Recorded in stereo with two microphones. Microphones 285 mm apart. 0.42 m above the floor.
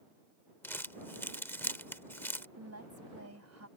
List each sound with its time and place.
0.6 s crumpling: 5° left (ahead or behind)
2.6 s a woman speaking: 70° right (ahead or behind)